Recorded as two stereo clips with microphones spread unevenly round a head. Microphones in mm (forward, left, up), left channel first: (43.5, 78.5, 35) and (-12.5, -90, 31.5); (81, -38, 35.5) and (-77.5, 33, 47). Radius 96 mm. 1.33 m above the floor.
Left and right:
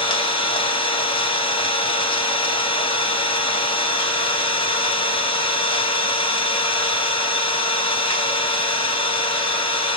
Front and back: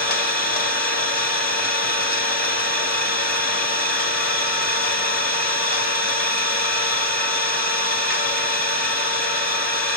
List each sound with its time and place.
0.0 s an engine running: 10° left, 1.8 m